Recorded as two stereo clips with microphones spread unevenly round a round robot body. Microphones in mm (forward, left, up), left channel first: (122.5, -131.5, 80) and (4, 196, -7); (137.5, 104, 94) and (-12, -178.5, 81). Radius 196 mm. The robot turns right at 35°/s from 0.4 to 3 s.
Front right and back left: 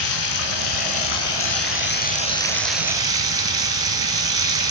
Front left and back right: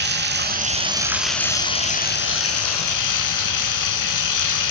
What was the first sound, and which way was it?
Running water, 60° right.